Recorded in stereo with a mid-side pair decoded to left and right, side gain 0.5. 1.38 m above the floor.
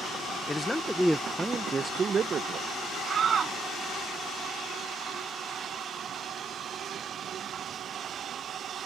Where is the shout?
45° right.